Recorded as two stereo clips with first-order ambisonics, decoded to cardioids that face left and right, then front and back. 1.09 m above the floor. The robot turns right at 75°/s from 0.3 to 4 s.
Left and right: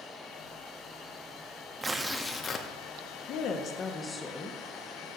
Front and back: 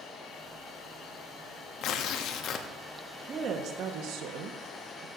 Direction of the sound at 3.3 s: 110° left.